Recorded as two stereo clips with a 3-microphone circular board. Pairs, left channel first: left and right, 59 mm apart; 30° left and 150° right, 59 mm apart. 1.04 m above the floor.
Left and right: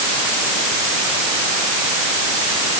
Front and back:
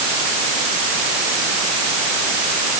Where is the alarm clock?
No alarm clock in this recording.